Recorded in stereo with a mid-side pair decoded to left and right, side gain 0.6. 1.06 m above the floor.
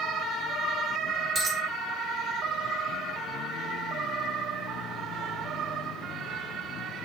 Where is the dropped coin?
45° right, 1.2 m.